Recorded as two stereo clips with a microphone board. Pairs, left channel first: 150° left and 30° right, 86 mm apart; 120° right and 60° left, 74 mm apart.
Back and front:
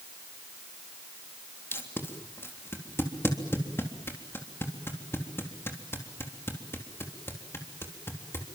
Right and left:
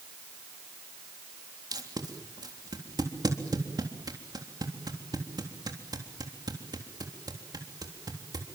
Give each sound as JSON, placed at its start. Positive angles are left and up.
{"t": 1.7, "sound": "tape being pulled", "azimuth_deg": 90, "distance_m": 3.5}